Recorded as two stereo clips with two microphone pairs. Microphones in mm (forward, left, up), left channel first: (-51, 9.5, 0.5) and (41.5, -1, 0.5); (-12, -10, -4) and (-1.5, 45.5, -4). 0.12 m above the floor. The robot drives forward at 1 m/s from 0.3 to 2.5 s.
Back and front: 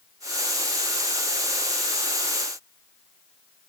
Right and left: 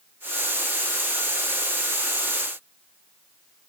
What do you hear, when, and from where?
Only background noise.